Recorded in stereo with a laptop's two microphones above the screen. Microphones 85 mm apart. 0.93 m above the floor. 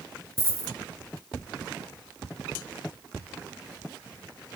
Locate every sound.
0.4 s a dropped coin: 30° right (ahead or behind), 2 m